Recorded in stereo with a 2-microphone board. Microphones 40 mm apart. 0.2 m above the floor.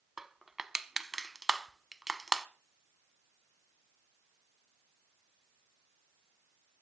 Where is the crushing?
10° right (ahead or behind), 0.6 m.